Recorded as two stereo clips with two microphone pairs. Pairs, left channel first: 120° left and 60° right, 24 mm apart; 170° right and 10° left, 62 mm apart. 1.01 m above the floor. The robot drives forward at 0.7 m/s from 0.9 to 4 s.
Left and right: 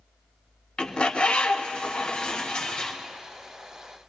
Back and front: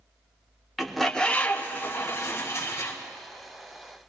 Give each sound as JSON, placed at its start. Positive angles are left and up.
{"t": 0.8, "sound": "a bird", "azimuth_deg": 105, "distance_m": 0.7}